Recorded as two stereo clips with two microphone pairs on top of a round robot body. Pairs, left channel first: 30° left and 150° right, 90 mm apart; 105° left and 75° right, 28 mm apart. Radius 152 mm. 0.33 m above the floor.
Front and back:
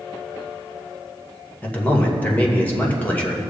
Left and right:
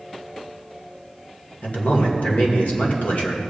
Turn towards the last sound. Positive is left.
turn(degrees=90)